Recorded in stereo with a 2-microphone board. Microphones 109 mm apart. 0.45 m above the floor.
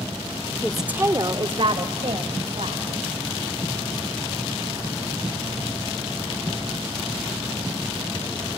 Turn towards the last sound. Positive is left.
turn(degrees=-70)  # may be behind; listen again after turning